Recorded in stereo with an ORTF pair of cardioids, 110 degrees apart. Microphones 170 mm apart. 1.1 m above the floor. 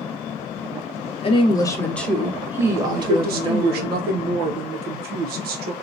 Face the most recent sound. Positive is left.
turn(degrees=-65)